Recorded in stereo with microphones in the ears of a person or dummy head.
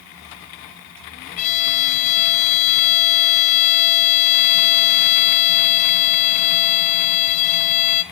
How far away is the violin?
About 0.9 m.